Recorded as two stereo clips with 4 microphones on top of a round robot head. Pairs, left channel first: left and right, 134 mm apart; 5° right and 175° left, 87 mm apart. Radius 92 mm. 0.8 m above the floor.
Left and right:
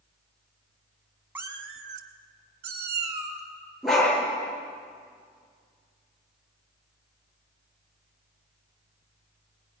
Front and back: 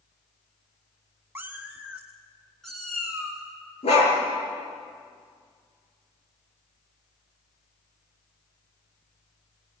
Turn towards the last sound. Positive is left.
turn(degrees=0)